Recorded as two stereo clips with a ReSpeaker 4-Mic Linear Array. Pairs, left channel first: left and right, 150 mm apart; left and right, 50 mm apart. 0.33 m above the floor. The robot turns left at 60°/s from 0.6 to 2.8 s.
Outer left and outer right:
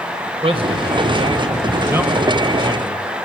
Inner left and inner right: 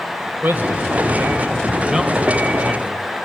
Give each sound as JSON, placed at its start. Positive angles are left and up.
{"t": 0.4, "sound": "a man speaking", "azimuth_deg": -75, "distance_m": 1.7}